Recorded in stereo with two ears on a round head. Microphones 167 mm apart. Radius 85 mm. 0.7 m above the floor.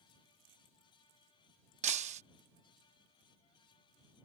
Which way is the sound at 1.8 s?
35° right (ahead or behind).